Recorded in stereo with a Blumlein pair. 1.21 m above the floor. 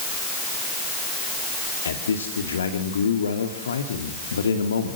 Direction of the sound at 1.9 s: 70° left.